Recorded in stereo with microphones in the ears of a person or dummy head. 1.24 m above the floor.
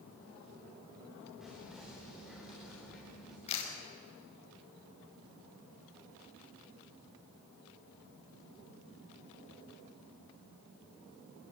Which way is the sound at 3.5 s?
35° left (ahead or behind).